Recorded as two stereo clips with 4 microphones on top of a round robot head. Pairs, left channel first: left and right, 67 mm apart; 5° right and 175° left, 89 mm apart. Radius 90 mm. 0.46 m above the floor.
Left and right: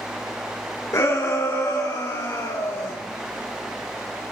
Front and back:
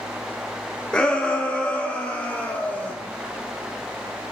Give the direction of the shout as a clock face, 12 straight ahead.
10 o'clock.